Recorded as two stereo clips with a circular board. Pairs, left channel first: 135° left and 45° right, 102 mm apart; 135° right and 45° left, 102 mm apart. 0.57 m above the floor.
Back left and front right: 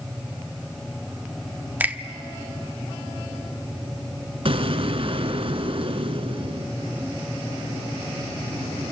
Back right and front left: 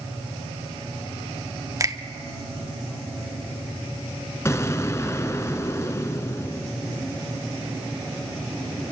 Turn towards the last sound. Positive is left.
turn(degrees=-70)